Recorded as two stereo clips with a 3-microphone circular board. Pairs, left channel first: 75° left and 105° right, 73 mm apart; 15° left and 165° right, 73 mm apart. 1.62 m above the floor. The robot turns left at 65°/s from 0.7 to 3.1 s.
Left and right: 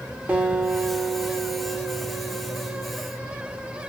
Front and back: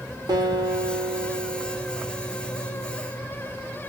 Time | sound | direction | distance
0.3 | a guitar | 175° right | 0.7 m